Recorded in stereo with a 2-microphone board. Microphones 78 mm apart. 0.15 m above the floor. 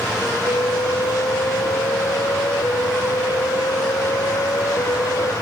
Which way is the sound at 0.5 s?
60° left (ahead or behind).